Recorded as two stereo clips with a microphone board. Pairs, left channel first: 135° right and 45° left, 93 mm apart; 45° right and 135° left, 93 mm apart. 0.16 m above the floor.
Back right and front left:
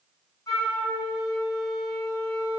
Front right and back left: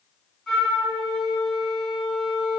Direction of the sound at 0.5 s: 125° right.